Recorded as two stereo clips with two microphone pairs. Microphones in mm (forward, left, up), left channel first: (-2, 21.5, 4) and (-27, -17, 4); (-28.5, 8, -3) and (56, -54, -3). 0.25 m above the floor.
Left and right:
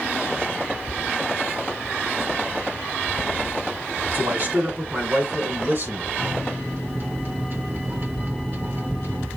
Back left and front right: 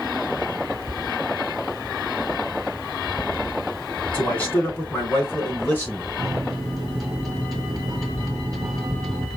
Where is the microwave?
125° right, 1.6 m.